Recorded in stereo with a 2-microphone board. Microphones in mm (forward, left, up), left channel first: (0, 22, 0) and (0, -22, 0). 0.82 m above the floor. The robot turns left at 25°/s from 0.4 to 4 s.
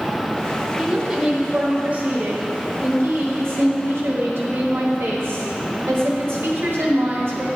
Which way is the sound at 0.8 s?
10° right.